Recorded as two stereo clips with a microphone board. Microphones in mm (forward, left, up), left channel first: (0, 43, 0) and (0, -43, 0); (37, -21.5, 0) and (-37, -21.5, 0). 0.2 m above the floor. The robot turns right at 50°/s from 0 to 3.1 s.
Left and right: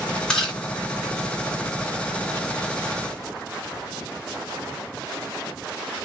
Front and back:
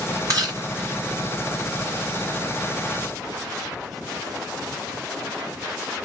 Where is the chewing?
170° left, 2.5 m; by 0.6 s 175° right, 2.5 m.